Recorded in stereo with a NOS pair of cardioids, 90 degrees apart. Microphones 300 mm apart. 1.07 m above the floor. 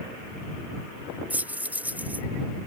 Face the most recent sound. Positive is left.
turn(degrees=-5)